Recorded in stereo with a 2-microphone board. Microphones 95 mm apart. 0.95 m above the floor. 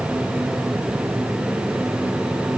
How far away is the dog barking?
I don't hear a dog barking.